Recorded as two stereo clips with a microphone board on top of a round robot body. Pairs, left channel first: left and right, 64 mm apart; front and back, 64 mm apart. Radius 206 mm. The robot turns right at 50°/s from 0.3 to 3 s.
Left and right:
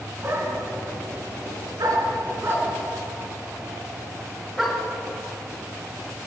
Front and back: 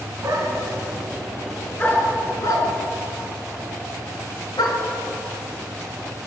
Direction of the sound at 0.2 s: 140° right.